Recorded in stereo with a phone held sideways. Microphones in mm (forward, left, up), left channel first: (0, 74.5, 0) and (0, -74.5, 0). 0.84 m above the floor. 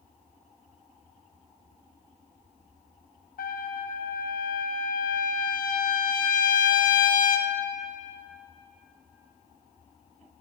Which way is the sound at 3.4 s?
75° left (ahead or behind).